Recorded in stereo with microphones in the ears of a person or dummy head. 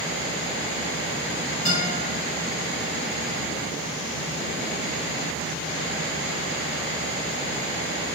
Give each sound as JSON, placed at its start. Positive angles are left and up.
{"t": 1.6, "sound": "a guitar", "side_deg": 40, "distance_m": 1.4}